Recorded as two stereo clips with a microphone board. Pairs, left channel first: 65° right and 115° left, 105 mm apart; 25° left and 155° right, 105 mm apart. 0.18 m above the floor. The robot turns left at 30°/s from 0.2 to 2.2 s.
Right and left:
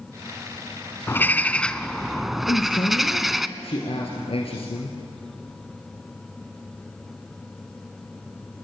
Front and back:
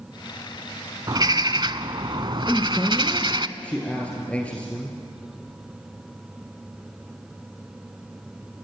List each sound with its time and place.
1.1 s a bird: 125° right, 0.7 m; by 3.5 s 160° right, 0.7 m
2.5 s a man speaking: 55° right, 2.5 m